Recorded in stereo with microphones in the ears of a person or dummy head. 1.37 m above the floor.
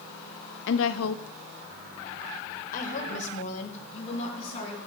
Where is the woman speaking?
45° left (ahead or behind), 0.7 m; by 4.8 s 40° left (ahead or behind), 3 m.